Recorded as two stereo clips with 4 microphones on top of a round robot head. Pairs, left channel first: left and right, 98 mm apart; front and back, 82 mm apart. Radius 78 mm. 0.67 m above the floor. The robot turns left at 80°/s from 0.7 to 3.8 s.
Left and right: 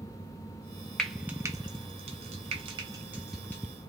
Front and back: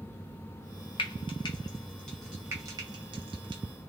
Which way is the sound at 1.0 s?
10° left.